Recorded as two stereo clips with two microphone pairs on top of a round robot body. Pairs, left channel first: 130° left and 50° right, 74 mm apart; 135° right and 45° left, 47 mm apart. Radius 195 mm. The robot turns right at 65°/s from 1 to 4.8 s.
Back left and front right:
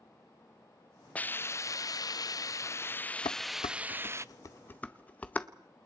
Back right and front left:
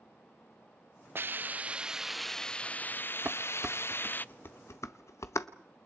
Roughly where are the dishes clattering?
Left.